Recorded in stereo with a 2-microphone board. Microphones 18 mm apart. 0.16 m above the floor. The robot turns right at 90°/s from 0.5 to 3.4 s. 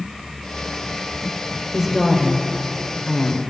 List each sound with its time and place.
1.7 s a woman speaking: 20° right, 2 m; by 3.4 s 130° left, 2 m